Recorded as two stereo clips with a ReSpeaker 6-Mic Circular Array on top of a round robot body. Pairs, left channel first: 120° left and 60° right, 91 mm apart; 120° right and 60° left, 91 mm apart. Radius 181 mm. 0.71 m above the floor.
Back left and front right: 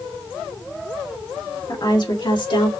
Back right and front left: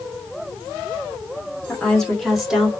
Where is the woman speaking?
160° left, 3 m; by 2.7 s 140° left, 2.5 m.